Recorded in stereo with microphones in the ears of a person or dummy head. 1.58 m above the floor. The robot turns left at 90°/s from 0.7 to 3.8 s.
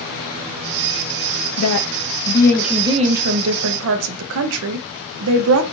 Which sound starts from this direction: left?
A woman speaking, at 1.6 s.